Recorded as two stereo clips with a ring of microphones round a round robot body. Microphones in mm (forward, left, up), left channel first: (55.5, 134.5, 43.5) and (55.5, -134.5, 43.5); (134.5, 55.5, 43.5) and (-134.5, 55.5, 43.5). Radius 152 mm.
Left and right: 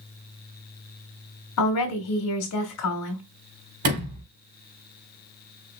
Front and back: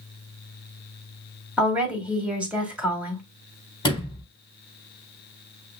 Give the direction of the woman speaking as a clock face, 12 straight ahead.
9 o'clock.